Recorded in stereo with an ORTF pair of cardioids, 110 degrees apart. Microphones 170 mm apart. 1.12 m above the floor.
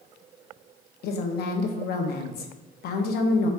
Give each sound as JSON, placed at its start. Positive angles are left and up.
{"t": 1.0, "sound": "a woman speaking", "azimuth_deg": 65, "distance_m": 0.7}